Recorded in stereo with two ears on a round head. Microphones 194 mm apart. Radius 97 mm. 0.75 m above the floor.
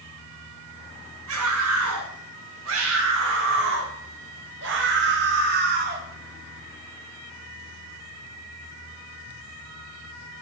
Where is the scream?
80° right, 8 m; by 6.0 s 40° right (ahead or behind), 4.5 m.